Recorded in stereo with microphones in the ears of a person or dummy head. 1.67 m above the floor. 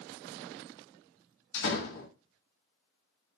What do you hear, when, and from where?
1.5 s a door slam: 70° left (ahead or behind), 2.5 m